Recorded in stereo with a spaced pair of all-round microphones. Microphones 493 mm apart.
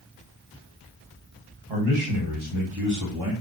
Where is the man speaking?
60° right (ahead or behind), 1.7 m; by 3.3 s 45° right (ahead or behind), 0.9 m.